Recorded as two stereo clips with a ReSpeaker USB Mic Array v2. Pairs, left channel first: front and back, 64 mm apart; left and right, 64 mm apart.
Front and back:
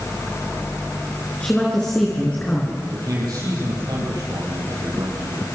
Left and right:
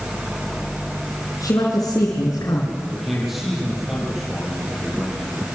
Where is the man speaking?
175° right, 9 m.